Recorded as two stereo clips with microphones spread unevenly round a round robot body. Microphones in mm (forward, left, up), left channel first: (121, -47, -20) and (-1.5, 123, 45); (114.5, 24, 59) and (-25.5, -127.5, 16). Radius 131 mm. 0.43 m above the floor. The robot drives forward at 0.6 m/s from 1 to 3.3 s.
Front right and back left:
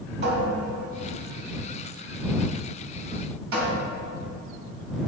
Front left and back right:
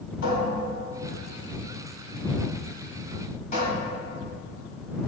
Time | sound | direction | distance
0.2 | a cupboard door | 85° left | 3 m